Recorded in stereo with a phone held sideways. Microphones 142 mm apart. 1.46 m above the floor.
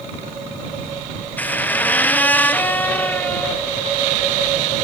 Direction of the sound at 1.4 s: 10° left (ahead or behind).